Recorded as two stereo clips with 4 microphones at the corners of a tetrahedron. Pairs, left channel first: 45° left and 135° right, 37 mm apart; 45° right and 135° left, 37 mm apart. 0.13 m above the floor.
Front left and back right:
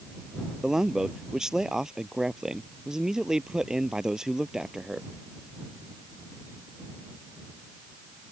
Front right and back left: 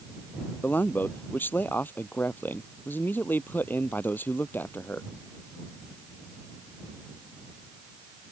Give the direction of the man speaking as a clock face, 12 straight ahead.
2 o'clock.